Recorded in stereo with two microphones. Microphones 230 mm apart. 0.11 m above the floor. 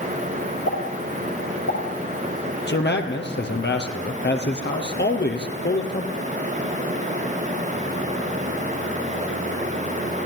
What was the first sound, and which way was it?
A pop, 80° left.